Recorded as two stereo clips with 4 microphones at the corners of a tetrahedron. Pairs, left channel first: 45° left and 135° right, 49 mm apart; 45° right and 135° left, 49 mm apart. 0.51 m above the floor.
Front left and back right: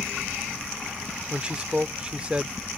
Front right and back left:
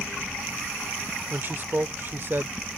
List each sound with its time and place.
1.3 s a man speaking: 165° left